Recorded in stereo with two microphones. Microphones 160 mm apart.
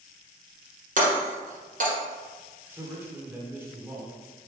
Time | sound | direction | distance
1.0 | breaking glass | 55° right (ahead or behind) | 1.8 m
2.7 | a man speaking | 15° right (ahead or behind) | 1.0 m